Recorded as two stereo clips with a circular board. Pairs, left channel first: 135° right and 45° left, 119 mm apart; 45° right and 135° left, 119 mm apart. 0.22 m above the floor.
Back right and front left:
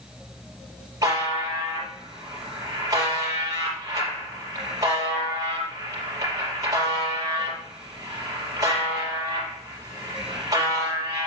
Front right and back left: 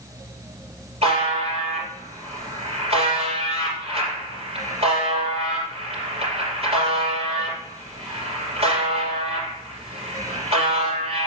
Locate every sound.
1.0 s a buzzer: 105° left, 5 m